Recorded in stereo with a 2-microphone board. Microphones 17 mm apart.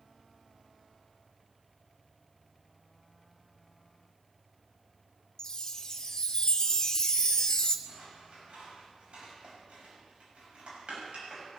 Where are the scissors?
85° right, 7 m.